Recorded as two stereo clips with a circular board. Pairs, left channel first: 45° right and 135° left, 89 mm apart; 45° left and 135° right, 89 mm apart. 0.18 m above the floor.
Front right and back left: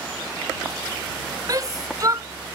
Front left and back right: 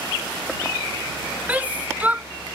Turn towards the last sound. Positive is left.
turn(degrees=160)